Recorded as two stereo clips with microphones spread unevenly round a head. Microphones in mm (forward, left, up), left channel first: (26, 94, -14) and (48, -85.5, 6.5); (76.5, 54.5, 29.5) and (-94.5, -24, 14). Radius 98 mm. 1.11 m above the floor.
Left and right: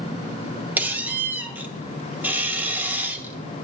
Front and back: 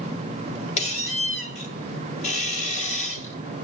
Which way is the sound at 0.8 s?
10° right.